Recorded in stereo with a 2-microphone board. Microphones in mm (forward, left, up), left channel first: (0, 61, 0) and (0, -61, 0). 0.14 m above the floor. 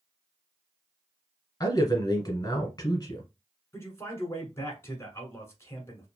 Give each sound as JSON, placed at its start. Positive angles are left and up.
{"t": 1.6, "sound": "a man speaking", "side_deg": 35, "distance_m": 1.3}
{"t": 3.7, "sound": "a man speaking", "side_deg": 20, "distance_m": 1.2}